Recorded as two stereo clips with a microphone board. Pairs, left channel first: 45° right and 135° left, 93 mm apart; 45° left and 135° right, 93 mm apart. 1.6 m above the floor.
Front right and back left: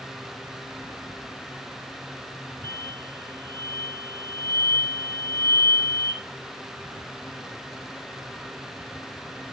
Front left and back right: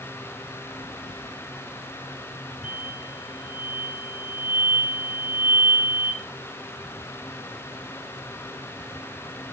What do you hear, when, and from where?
2.6 s an explosion: 15° left, 0.9 m